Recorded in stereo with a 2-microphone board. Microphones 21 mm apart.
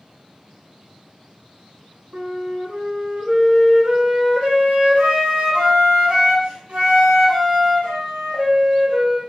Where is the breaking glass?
No breaking glass in this recording.